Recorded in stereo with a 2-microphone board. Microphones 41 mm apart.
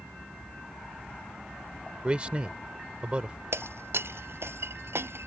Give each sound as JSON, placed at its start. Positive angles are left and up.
{"t": 2.0, "sound": "a man speaking", "side_deg": -25}
{"t": 3.5, "sound": "breaking glass", "side_deg": -70}